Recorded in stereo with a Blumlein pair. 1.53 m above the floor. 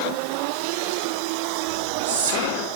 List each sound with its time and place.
1.7 s whispering: 55° right, 3 m